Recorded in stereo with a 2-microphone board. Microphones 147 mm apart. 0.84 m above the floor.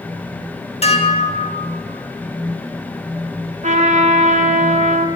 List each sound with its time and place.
0.8 s dishes clattering: 45° left (ahead or behind), 1.1 m
3.6 s a trumpet: 55° right (ahead or behind), 0.8 m